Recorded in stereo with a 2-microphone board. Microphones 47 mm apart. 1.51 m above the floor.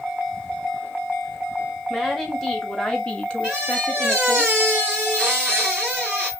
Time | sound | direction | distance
1.9 | a woman speaking | 5° left (ahead or behind) | 2 m
3.4 | a squeak | 20° right (ahead or behind) | 2 m